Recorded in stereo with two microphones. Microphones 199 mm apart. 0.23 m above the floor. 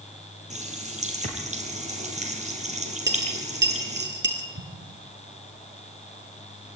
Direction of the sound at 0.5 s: 35° right (ahead or behind).